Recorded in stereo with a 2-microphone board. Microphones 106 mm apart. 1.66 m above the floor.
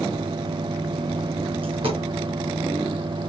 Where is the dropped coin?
55° right (ahead or behind), 4 m.